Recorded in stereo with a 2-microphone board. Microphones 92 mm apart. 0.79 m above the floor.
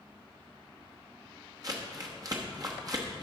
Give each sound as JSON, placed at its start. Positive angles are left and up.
{"t": 1.6, "sound": "crumpling", "side_deg": -40, "distance_m": 1.0}